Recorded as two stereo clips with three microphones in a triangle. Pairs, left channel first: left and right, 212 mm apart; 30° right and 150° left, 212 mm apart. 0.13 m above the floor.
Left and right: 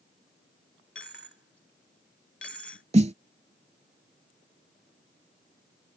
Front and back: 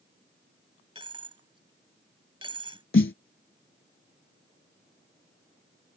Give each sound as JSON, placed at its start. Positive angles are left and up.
{"t": 0.9, "sound": "a dropped coin", "azimuth_deg": 90}
{"t": 2.9, "sound": "a snare drum", "azimuth_deg": -35}